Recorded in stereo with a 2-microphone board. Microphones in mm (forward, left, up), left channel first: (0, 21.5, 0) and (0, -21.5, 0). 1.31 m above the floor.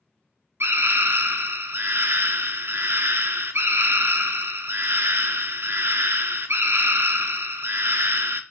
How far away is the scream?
About 1.3 m.